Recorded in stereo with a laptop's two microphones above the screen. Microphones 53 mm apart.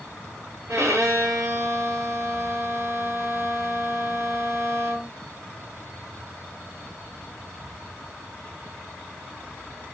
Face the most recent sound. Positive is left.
turn(degrees=-65)  # may be behind; listen again after turning